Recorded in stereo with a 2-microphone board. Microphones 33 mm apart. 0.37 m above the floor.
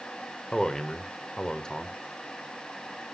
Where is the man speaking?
20° left (ahead or behind), 1.0 m.